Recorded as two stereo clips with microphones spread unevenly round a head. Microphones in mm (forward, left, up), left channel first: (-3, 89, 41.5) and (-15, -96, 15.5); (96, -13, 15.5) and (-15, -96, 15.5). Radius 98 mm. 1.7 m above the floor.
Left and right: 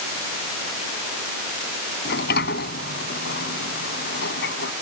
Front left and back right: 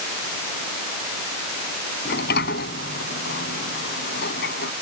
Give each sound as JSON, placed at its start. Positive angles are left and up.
{"t": 2.0, "sound": "a sliding door", "azimuth_deg": 45}